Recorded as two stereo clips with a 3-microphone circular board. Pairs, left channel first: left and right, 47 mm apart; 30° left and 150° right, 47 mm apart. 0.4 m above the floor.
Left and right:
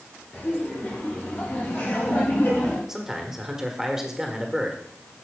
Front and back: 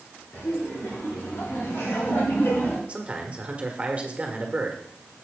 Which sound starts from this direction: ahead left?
Laughter, at 0.3 s.